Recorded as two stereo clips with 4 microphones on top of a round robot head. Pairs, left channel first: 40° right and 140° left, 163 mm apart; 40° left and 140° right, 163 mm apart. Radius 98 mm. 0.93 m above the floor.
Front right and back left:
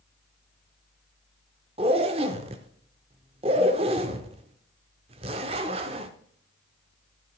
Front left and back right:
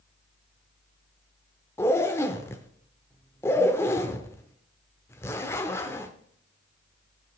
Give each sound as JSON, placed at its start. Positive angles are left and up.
{"t": 1.8, "sound": "a zipper", "azimuth_deg": 110, "distance_m": 0.6}